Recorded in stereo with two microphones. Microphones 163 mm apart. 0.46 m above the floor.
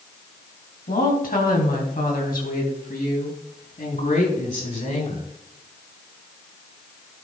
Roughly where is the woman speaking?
Left.